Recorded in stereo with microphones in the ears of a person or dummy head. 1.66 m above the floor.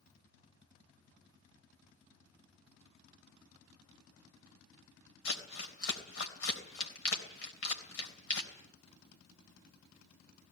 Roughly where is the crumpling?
Left.